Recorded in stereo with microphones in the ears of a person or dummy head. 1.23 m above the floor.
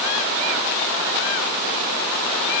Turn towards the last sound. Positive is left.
No sound to turn to.